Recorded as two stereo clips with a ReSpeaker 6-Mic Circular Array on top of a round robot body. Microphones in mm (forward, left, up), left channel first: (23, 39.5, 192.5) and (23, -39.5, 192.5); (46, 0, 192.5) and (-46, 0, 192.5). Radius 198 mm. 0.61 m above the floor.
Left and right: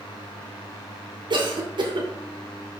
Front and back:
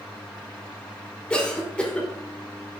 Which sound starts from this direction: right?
A cough, at 1.3 s.